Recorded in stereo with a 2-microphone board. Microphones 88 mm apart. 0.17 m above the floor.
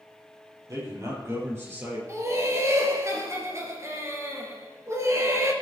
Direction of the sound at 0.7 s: 40° right (ahead or behind).